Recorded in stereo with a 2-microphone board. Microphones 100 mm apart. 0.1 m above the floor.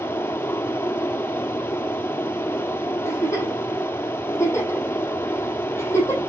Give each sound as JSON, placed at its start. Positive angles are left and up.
{"t": 0.0, "sound": "running water", "side_deg": 20, "distance_m": 1.3}
{"t": 3.0, "sound": "a giggle", "side_deg": 30, "distance_m": 5.0}